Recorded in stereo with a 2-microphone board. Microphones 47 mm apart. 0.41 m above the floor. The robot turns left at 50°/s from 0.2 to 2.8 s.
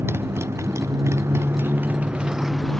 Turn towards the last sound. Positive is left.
turn(degrees=175)